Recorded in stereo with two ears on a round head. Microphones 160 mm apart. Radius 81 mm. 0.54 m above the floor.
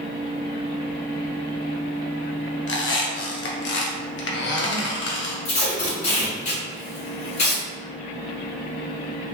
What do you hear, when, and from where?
2.7 s a squeak: 70° left (ahead or behind), 0.7 m
5.5 s tape being pulled: 40° left (ahead or behind), 1.6 m